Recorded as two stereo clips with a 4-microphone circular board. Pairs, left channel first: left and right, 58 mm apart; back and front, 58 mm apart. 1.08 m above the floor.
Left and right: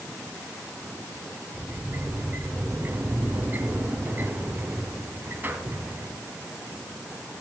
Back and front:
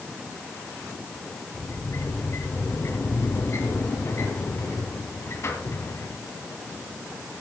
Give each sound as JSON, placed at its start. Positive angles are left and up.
{"t": 1.5, "sound": "a sliding door", "azimuth_deg": -145, "distance_m": 2.5}